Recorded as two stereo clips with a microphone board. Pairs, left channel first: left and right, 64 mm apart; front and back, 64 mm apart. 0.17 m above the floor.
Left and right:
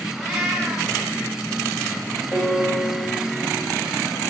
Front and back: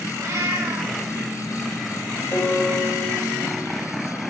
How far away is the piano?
About 3 m.